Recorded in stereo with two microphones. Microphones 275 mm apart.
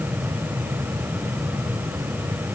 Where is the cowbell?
I don't hear a cowbell.